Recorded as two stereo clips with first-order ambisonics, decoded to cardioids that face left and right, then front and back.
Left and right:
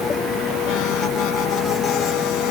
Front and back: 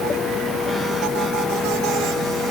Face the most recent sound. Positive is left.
No sound to turn to.